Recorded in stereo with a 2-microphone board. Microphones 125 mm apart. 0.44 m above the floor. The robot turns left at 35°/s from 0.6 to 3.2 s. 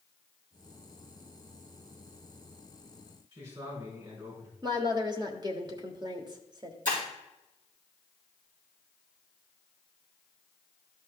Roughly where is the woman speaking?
Right.